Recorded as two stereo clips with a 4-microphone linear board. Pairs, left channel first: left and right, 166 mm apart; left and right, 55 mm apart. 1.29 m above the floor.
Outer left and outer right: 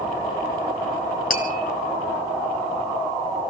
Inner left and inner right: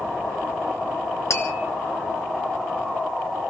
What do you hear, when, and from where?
1.3 s tapping: 60° left (ahead or behind), 3 m